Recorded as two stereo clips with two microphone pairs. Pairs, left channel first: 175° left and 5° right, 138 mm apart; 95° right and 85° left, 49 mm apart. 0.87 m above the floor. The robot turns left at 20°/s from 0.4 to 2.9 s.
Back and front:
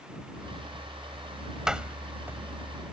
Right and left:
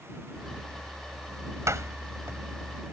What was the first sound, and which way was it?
A door slam, 80° left.